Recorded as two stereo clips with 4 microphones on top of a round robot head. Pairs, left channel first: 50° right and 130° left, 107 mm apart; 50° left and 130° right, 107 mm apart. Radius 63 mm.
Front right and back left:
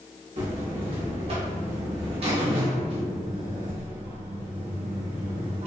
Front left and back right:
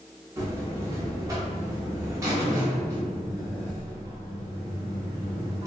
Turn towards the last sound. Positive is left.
turn(degrees=165)